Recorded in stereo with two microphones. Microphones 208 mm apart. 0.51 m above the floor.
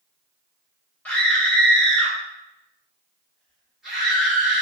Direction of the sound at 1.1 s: 5° left (ahead or behind).